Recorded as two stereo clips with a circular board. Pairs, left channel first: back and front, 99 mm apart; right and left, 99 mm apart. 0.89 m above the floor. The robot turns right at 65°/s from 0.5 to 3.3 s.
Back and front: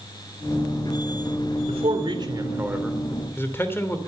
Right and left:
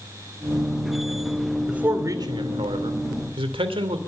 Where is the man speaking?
5° left, 2.5 m; by 4.0 s 115° left, 2.5 m.